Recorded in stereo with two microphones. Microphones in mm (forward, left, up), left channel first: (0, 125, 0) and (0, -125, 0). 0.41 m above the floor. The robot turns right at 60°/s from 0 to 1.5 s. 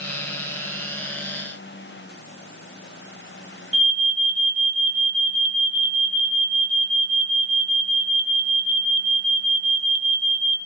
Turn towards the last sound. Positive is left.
turn(degrees=-65)  # may be behind; listen again after turning